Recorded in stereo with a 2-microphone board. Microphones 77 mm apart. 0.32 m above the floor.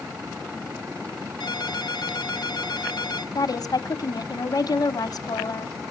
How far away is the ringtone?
About 1.6 m.